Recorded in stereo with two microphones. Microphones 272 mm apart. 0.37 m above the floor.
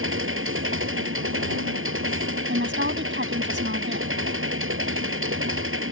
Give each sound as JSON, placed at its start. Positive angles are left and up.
{"t": 0.0, "sound": "an engine running", "side_deg": -50}
{"t": 2.5, "sound": "a woman speaking", "side_deg": -45}